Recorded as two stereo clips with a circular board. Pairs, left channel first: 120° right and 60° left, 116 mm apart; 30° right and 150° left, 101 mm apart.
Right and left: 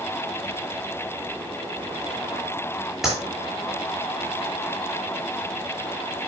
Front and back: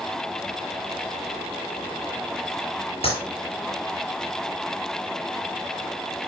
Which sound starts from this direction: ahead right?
A clap, at 3.0 s.